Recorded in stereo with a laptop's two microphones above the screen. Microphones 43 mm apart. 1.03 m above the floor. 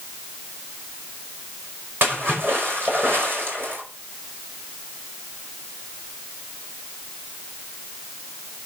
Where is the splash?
50° right (ahead or behind), 5 m.